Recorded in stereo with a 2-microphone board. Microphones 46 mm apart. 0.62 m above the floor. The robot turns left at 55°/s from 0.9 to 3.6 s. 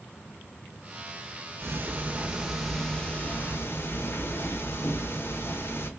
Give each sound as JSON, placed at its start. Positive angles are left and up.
{"t": 1.6, "sound": "ticking", "azimuth_deg": -120, "distance_m": 0.7}